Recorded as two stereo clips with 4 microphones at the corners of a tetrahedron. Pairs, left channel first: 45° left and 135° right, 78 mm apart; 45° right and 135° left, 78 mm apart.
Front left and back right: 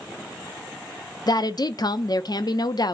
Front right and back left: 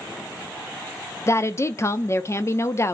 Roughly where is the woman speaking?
Ahead.